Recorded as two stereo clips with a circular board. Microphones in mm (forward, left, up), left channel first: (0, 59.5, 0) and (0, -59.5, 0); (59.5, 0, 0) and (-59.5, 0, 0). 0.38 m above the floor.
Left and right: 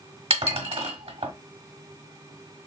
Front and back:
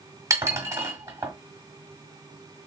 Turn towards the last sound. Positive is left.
turn(degrees=-115)